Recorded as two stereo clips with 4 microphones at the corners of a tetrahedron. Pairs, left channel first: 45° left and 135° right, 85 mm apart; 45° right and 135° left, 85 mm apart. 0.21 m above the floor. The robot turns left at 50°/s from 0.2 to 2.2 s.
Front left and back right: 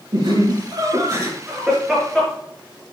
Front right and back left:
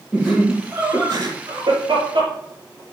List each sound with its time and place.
0.1 s laughter: 130° right, 4.5 m; by 2.3 s 130° left, 4.5 m